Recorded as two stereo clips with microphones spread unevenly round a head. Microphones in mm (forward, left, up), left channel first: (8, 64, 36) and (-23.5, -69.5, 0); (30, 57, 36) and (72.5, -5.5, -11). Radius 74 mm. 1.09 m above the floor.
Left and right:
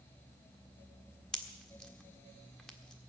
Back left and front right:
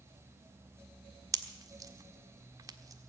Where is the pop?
5° right, 1.5 m.